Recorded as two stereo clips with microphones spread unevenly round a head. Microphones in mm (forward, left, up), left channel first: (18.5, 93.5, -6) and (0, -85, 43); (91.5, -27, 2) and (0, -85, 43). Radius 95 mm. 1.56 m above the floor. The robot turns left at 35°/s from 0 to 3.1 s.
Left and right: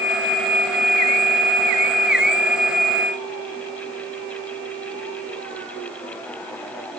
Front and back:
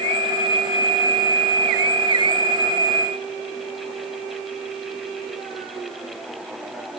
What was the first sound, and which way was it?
Only background noise.